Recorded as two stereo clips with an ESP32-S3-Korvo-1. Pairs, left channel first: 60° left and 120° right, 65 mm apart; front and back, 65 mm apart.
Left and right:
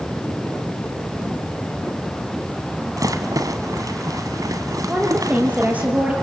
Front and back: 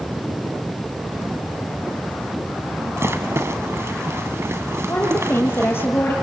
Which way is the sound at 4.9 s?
55° right.